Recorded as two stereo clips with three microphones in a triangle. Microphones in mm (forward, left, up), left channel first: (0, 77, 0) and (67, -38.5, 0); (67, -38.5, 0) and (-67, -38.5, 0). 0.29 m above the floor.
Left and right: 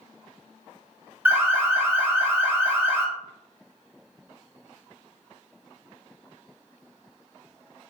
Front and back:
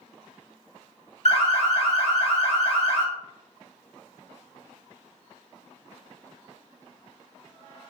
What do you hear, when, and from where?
1.2 s an alarm: 10° left, 0.9 m